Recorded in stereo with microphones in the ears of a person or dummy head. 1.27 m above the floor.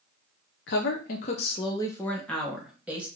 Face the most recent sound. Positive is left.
turn(degrees=-5)  # may be behind; listen again after turning